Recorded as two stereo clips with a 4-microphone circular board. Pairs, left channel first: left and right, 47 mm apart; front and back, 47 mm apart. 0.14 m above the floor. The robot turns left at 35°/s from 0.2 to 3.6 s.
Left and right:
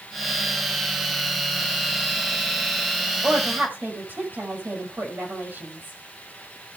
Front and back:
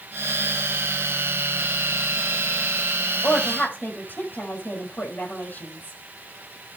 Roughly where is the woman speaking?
Ahead right.